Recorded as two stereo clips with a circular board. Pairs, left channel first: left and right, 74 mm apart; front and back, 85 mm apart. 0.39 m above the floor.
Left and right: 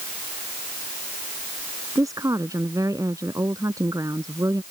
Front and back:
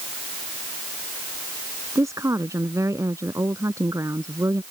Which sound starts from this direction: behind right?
A woman speaking, at 1.9 s.